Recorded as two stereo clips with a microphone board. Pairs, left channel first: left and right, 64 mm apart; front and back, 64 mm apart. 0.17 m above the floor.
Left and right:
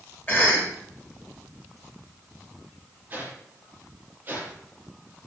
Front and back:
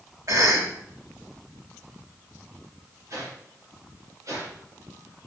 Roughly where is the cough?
Behind left.